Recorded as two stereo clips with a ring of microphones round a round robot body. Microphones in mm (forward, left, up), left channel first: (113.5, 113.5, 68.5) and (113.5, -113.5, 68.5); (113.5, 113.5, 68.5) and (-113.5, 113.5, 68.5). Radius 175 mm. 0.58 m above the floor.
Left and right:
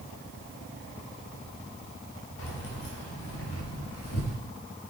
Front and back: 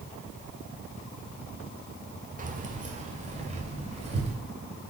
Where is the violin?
I don't hear a violin.